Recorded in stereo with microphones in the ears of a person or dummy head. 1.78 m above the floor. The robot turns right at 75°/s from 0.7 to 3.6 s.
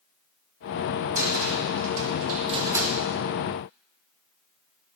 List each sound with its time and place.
1.1 s a cupboard door: 40° right (ahead or behind), 2.0 m; by 3.0 s centre (ahead or behind), 2.0 m